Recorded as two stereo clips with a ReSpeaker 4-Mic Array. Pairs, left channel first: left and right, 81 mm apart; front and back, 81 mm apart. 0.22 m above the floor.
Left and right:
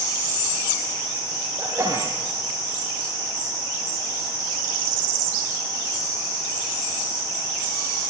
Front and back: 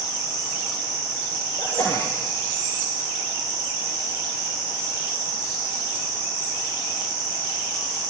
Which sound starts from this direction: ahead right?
A sneeze, at 1.6 s.